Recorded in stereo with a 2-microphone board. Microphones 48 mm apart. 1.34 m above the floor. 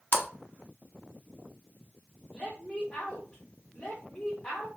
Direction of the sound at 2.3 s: 30° left (ahead or behind).